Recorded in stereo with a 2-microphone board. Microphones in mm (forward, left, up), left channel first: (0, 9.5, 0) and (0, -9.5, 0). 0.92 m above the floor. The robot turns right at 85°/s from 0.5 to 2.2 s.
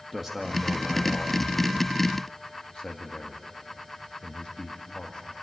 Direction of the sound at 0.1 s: 10° right (ahead or behind).